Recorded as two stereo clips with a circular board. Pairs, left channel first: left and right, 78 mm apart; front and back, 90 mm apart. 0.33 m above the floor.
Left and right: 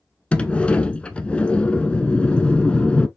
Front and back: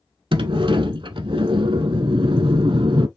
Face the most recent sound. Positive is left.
turn(degrees=165)